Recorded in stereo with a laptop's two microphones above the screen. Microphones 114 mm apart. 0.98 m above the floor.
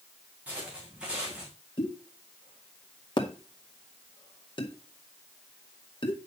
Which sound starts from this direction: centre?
Footsteps, at 0.5 s.